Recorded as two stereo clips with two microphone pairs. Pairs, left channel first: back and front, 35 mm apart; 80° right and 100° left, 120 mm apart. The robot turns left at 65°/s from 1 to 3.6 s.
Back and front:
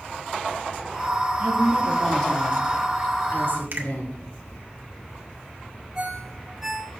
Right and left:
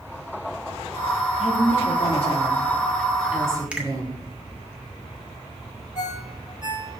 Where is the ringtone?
80° right, 1.7 m.